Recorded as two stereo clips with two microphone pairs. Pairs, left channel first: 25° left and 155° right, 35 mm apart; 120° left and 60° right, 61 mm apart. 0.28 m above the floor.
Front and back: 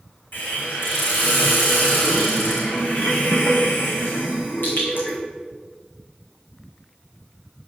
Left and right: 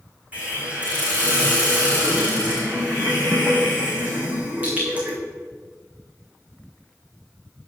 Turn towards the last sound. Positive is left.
turn(degrees=5)